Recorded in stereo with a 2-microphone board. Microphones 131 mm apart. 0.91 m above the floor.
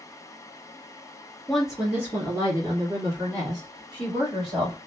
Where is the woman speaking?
Centre (ahead or behind), 0.7 m; by 4.8 s 40° right (ahead or behind), 2 m.